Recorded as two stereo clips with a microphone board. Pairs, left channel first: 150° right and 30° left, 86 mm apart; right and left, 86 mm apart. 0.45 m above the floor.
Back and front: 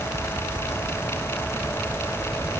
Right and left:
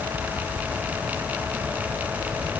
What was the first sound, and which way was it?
Only background noise.